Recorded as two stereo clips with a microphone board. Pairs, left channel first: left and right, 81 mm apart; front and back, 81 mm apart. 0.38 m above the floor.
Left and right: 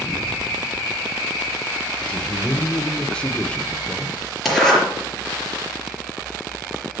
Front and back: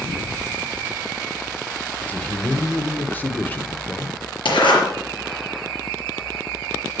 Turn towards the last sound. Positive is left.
turn(degrees=0)